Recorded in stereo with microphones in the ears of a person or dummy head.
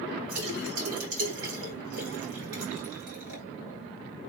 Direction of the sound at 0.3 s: 75° right (ahead or behind).